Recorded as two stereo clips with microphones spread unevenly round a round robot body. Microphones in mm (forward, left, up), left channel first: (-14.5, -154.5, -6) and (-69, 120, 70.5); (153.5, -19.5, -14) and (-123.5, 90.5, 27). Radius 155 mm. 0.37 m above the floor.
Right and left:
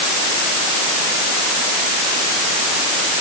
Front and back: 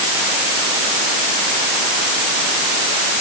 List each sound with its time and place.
Only background noise.